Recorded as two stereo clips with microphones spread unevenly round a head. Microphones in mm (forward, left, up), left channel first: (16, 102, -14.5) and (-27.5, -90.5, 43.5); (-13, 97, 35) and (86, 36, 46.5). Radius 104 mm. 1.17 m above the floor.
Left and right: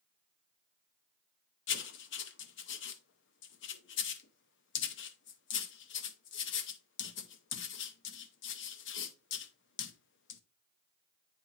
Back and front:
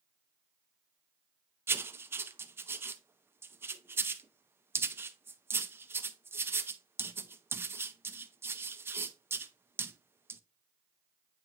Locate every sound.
1.7 s writing: 35° left, 0.6 m